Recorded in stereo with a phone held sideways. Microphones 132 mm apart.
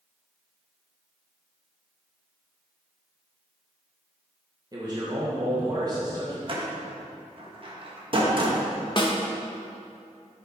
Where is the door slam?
40° right (ahead or behind), 1.3 m.